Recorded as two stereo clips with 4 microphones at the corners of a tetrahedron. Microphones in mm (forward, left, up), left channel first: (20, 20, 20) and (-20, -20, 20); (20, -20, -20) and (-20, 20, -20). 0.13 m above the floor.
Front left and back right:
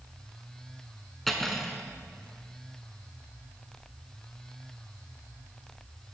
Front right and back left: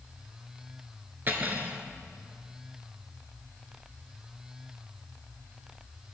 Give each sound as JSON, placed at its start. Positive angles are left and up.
{"t": 1.3, "sound": "cutlery clinking", "azimuth_deg": 130, "distance_m": 0.8}